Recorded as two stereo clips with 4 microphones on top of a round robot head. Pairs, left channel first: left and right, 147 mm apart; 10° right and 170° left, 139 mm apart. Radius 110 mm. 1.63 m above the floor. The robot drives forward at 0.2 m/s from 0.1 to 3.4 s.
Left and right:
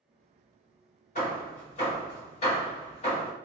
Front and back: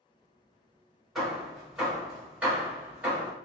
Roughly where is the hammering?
Left.